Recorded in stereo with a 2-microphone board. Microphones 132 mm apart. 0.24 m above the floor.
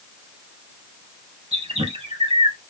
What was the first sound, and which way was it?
A bird, 50° right (ahead or behind).